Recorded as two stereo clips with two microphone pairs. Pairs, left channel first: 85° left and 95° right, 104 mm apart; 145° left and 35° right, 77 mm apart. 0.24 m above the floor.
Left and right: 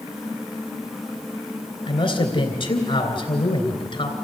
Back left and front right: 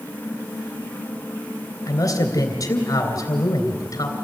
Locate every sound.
1.9 s a man speaking: 110° left, 3 m